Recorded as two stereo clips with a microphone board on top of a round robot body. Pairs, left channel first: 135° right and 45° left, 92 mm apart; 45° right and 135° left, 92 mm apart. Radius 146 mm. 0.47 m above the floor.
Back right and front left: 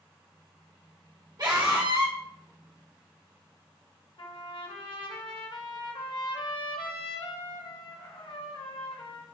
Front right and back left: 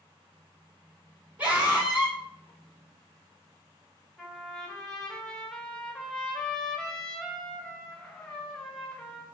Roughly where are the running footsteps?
I don't hear running footsteps.